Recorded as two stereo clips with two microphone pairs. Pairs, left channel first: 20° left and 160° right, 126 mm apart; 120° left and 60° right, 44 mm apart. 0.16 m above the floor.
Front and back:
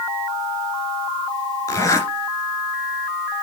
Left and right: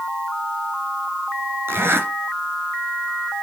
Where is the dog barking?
No dog barking in this recording.